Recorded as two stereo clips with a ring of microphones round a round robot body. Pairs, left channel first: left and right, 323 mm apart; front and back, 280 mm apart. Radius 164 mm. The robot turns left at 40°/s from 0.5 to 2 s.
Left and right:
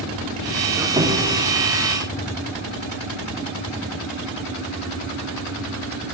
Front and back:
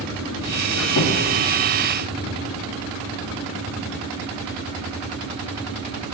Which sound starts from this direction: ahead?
A squeak, at 0.7 s.